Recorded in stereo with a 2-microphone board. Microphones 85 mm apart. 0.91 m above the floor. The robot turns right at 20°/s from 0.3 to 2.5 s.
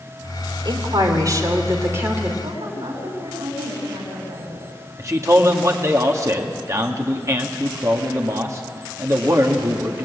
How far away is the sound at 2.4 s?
About 7.5 m.